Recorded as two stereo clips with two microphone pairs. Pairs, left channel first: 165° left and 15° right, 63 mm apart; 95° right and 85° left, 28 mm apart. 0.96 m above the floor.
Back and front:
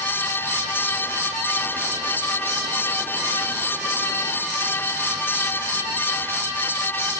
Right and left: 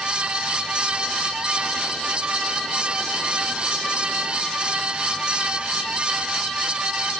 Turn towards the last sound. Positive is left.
No sound to turn to.